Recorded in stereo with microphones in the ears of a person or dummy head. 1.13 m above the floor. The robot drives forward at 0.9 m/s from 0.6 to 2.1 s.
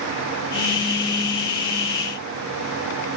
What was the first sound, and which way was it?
Only background noise.